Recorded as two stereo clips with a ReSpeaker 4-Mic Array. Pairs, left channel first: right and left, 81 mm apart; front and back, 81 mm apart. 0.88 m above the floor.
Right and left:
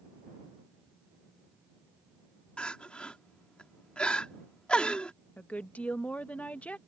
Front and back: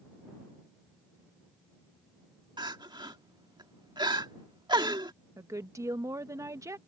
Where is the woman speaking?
155° right.